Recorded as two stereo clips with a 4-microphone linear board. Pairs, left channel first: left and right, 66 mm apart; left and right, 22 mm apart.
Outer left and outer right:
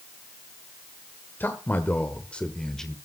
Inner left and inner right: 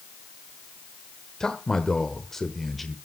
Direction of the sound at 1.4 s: 30° left (ahead or behind).